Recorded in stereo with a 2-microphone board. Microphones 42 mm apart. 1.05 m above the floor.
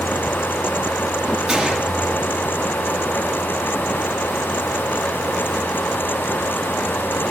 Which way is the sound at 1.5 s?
20° right (ahead or behind).